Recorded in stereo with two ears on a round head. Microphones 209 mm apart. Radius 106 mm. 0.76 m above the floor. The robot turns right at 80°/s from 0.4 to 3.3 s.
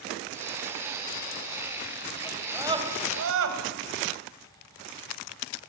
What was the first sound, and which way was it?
A scream, 15° left (ahead or behind).